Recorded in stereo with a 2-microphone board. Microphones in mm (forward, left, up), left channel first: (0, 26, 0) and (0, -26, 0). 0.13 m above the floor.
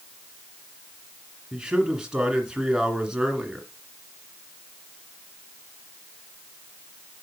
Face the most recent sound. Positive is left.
turn(degrees=-15)  # may be behind; listen again after turning